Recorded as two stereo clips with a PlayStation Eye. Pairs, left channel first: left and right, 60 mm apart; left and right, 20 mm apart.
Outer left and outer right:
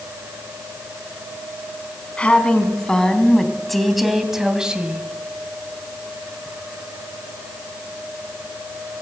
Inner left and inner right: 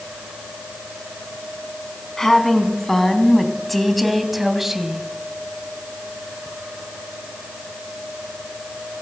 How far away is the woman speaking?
About 3.5 m.